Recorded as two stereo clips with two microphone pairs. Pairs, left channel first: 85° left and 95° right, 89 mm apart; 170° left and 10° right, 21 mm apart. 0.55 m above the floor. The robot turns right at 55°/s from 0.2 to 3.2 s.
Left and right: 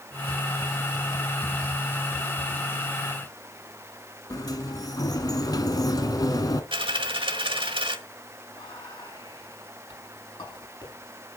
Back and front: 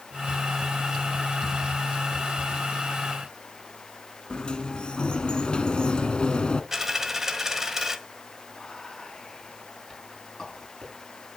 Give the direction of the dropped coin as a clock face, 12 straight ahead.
3 o'clock.